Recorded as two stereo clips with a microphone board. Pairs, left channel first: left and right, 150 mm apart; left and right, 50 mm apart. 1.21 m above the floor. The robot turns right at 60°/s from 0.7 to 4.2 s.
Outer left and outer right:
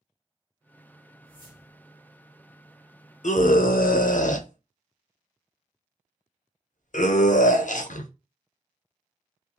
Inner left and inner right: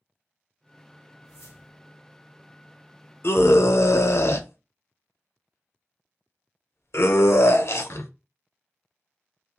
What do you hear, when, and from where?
1.2 s a whoosh: 75° left, 0.8 m; by 1.9 s 115° left, 0.8 m
3.2 s a scream: 60° left (ahead or behind), 0.6 m; by 8.1 s 65° left (ahead or behind), 0.6 m